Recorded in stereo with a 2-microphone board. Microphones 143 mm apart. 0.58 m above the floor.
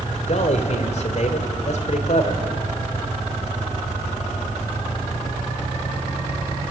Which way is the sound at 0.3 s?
55° left (ahead or behind).